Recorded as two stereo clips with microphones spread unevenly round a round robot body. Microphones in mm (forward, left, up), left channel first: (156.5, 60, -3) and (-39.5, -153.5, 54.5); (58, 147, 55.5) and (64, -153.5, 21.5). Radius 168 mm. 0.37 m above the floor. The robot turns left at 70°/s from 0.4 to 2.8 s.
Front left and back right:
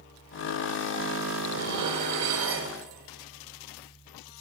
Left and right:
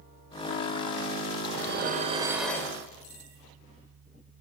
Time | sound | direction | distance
1.5 | dishes clattering | 110° right | 0.9 m